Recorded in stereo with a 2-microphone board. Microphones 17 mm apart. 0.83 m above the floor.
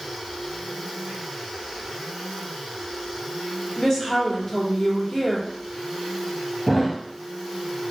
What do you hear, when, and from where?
3.8 s a woman speaking: 25° left (ahead or behind), 2.5 m
6.7 s a thud: 10° left (ahead or behind), 0.9 m